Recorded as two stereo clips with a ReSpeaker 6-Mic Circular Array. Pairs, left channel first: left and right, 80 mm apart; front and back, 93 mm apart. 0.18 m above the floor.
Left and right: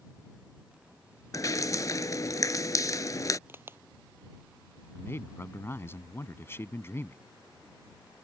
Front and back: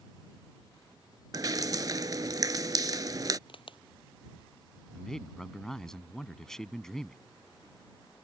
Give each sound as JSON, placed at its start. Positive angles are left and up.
{"t": 1.3, "sound": "dripping", "azimuth_deg": 130}
{"t": 3.5, "sound": "a crack", "azimuth_deg": -30}
{"t": 4.9, "sound": "a man speaking", "azimuth_deg": 80}